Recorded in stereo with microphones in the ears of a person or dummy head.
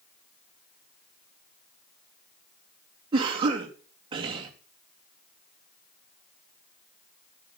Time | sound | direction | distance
3.1 | a cough | 25° right (ahead or behind) | 3 m